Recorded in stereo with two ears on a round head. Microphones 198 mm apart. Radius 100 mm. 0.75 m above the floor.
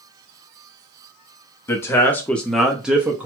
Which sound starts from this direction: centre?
A man speaking, at 1.7 s.